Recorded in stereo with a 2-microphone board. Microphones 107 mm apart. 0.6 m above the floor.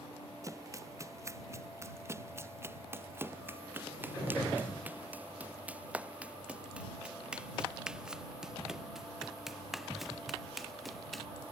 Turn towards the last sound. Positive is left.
turn(degrees=0)  # may be behind; listen again after turning